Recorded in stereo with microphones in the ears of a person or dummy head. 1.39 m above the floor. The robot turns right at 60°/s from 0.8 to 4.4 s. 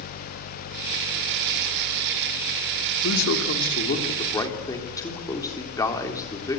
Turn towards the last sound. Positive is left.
turn(degrees=165)